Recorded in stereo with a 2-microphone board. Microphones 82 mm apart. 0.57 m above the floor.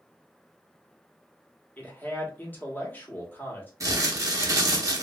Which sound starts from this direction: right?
Crumpling, at 3.8 s.